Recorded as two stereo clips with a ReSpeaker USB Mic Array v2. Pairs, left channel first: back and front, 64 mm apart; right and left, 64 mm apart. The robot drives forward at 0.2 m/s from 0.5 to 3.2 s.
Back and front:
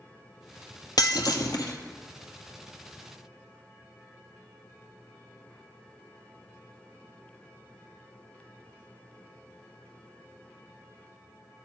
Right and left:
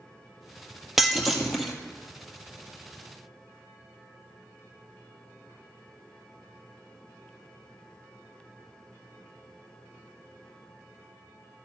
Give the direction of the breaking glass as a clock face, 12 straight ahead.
6 o'clock.